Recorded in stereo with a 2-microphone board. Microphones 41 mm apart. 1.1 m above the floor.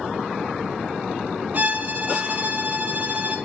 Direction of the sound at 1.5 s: 35° right (ahead or behind).